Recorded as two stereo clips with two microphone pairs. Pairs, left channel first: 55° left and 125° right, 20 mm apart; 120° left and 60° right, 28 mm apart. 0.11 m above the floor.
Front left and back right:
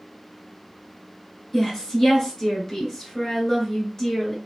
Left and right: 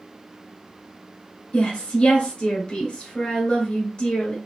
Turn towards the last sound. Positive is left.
turn(degrees=95)